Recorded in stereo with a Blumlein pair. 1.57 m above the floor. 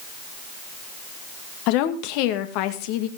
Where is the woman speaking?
45° left, 2.0 m.